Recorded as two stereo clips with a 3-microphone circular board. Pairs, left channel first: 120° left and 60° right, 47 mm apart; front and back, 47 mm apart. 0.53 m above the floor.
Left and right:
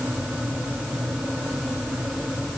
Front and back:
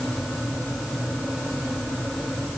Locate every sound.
Only background noise.